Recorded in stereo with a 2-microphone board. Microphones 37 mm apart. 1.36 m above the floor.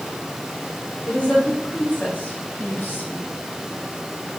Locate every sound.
1.1 s a woman speaking: 20° left (ahead or behind), 3 m; by 3.3 s 60° left (ahead or behind), 2 m